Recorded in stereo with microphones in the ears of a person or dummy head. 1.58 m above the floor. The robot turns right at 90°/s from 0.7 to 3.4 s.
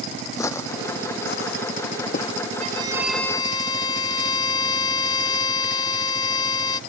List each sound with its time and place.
0.4 s footsteps: 20° left (ahead or behind)
2.6 s a violin: 45° right; by 6.8 s 25° left